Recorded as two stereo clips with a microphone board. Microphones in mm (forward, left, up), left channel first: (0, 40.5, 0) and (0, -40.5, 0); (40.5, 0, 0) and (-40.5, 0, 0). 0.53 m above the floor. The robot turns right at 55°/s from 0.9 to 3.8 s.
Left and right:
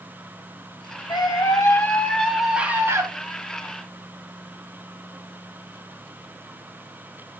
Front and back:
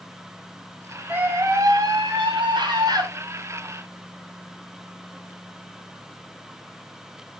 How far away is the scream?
About 3 m.